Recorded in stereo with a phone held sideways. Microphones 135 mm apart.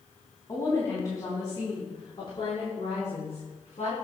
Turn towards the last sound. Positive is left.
turn(degrees=60)  # may be behind; listen again after turning